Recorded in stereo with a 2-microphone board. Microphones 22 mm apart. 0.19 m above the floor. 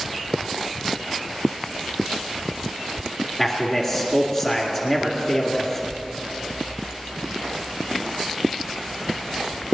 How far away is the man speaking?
About 2.5 m.